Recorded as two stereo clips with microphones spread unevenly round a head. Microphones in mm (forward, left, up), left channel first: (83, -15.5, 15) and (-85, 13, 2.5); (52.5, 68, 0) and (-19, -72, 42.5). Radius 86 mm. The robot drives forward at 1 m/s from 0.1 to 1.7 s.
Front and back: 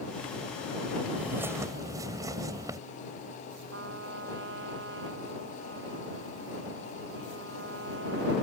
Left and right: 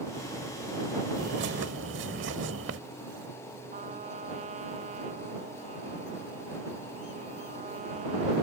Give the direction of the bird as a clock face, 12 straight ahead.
4 o'clock.